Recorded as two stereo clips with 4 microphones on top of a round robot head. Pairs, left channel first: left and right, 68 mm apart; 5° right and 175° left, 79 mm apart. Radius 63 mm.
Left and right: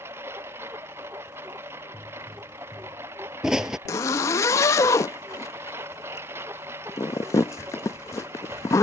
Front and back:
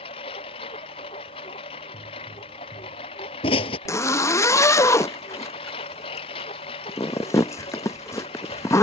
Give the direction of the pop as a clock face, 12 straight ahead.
12 o'clock.